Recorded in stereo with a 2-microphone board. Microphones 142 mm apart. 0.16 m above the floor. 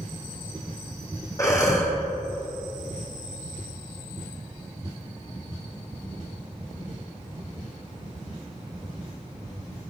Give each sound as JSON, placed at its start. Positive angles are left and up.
{"t": 1.4, "sound": "breathing", "side_deg": 25, "distance_m": 2.0}